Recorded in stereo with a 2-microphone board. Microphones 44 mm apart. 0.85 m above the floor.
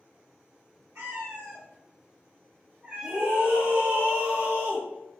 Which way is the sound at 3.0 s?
35° right (ahead or behind).